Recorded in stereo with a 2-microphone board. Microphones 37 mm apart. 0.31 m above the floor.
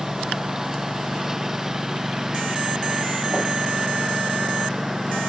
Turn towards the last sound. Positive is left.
turn(degrees=-10)  # may be behind; listen again after turning